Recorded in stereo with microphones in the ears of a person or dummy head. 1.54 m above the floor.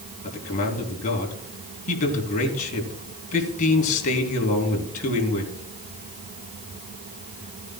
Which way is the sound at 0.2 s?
45° left (ahead or behind).